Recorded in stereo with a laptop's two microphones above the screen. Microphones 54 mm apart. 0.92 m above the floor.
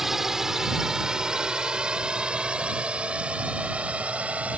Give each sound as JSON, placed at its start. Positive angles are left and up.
{"t": 0.0, "sound": "a drone", "side_deg": -5}